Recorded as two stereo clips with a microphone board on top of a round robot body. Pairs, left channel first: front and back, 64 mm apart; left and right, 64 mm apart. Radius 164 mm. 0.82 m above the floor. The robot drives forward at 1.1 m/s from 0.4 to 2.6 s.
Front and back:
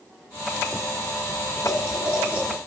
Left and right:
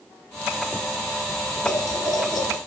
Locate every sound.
1.6 s boiling: 95° left, 3 m; by 2.6 s 115° left, 3.5 m